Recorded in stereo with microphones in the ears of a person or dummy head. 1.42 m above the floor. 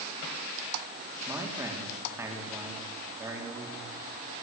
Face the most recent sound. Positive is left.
turn(degrees=-10)  # may be behind; listen again after turning